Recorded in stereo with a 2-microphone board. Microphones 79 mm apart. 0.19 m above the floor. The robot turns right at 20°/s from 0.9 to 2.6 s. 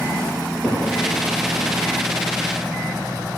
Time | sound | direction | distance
0.4 | a cupboard door | 5° right (ahead or behind) | 5 m